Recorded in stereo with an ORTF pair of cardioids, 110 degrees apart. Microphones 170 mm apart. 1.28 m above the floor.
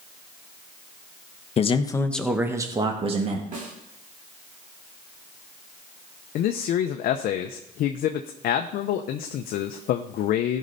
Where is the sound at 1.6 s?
40° left, 1.2 m; by 3.4 s 45° right, 2 m.